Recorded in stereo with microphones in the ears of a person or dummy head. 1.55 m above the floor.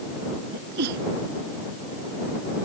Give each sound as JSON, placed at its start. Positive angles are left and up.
{"t": 0.5, "sound": "a sneeze", "side_deg": -60}